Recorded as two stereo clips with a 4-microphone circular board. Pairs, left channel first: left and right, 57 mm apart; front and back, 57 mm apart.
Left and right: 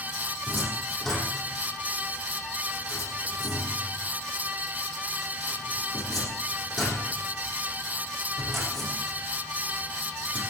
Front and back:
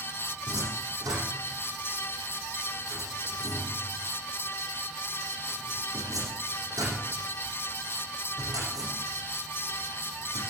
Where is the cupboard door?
Straight behind, 8.5 m.